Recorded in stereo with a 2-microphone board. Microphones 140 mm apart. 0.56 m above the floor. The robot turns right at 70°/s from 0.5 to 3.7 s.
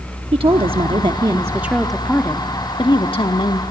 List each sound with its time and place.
0.3 s a woman speaking: 95° right, 0.9 m; by 3.6 s 120° left, 0.9 m